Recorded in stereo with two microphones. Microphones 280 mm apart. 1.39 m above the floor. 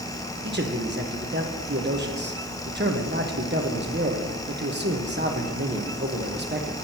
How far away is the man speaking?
About 1.1 m.